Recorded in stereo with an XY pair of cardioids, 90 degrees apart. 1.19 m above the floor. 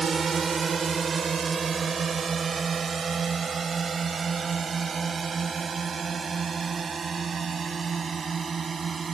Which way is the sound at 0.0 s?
45° right.